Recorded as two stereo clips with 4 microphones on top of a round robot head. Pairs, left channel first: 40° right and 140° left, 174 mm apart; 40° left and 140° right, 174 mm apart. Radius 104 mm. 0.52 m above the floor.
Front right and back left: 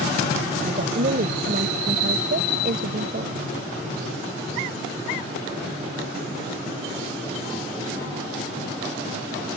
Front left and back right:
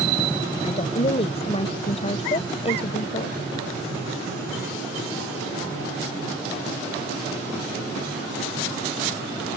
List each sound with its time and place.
0.6 s a woman speaking: 95° left